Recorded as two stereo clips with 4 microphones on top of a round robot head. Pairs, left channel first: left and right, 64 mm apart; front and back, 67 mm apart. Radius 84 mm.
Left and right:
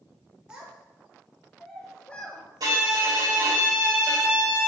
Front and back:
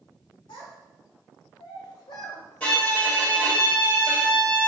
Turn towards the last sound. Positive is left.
turn(degrees=-70)